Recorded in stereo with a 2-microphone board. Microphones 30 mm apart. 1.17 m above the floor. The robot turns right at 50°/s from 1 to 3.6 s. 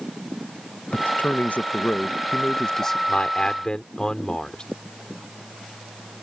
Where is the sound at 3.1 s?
50° left (ahead or behind); by 4.6 s 25° left (ahead or behind).